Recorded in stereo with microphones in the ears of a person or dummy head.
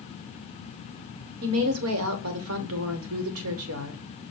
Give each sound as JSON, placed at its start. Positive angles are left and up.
{"t": 1.4, "sound": "a woman speaking", "side_deg": -75, "distance_m": 1.0}